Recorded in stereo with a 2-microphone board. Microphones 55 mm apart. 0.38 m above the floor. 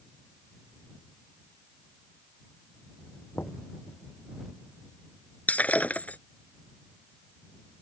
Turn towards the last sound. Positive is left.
turn(degrees=30)  # may be behind; listen again after turning